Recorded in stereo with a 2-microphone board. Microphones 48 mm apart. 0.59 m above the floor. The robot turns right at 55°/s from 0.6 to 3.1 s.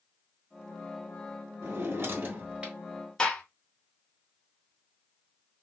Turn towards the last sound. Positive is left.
turn(degrees=15)  # may be behind; listen again after turning